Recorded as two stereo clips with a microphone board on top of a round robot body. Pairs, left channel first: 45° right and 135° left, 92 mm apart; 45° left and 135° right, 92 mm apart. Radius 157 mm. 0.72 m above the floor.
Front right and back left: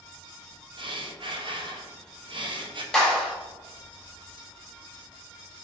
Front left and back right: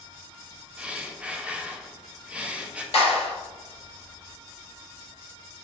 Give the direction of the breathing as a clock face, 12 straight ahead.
7 o'clock.